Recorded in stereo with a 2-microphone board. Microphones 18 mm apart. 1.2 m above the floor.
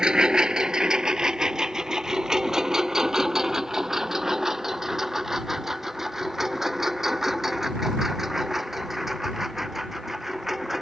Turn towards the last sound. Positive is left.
turn(degrees=-10)  # may be behind; listen again after turning